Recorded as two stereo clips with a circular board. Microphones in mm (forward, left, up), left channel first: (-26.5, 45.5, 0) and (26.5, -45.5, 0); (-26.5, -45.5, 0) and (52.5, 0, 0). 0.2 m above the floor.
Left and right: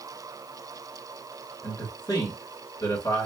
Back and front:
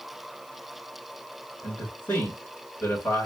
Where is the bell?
I don't hear a bell.